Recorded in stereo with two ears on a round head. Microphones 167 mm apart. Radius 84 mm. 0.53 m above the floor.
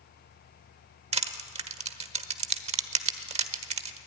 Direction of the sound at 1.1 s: 35° right (ahead or behind).